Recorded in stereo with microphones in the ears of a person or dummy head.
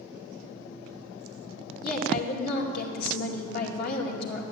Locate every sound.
1.8 s a woman speaking: 60° left (ahead or behind), 2 m